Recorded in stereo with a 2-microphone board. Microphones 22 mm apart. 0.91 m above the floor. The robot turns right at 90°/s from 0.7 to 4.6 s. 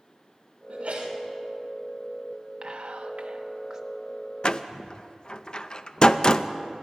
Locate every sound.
0.7 s a sneeze: 115° right, 3.5 m; by 1.2 s 75° right, 3.5 m
2.6 s whispering: 130° right, 1.1 m; by 3.8 s 20° right, 1.1 m
4.4 s a door slam: 45° left (ahead or behind), 0.5 m; by 6.5 s 40° left (ahead or behind), 0.5 m